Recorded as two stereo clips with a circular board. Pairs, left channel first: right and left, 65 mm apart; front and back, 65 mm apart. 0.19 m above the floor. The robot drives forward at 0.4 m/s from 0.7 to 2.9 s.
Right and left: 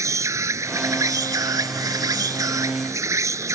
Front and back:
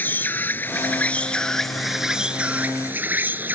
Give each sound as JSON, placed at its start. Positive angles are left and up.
{"t": 0.0, "sound": "an insect", "azimuth_deg": 60}